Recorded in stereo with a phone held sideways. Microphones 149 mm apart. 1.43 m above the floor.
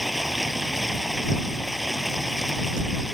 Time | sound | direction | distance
0.0 | running water | centre (ahead or behind) | ?